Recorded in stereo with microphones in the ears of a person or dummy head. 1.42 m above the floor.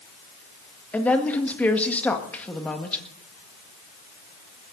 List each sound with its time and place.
0.9 s a woman speaking: 5° left (ahead or behind), 1.8 m